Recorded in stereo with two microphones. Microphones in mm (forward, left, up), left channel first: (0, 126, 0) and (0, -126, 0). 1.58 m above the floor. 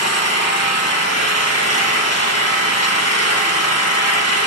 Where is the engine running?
75° left (ahead or behind), 1.5 m.